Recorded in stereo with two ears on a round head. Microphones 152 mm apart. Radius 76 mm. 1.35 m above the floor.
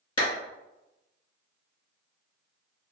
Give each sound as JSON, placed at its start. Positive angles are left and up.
{"t": 0.2, "sound": "a clap", "side_deg": 30, "distance_m": 1.6}